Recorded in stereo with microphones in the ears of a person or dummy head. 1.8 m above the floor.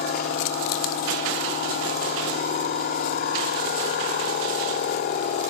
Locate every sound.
0.0 s a machine running: 40° left (ahead or behind), 1.7 m